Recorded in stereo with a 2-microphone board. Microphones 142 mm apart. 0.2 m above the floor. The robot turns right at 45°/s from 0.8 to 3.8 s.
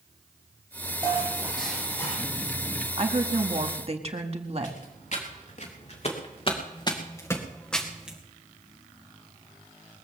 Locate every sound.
1.0 s dishes clattering: 30° right, 5.5 m; by 2.2 s 25° left, 5.5 m
3.0 s a woman speaking: 115° right, 1.6 m; by 4.8 s 80° right, 1.6 m
4.6 s footsteps: 65° left (ahead or behind), 4.5 m; by 8.2 s 10° right (ahead or behind), 2.5 m